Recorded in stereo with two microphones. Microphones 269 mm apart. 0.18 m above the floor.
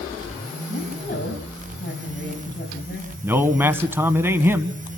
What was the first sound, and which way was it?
A woman speaking, 35° left (ahead or behind).